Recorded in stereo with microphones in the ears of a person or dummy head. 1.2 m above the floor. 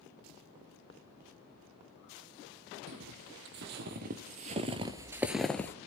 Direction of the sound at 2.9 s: 65° right (ahead or behind).